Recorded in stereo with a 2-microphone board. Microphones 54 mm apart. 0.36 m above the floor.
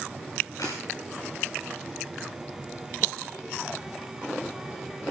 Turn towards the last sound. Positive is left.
turn(degrees=70)  # may be behind; listen again after turning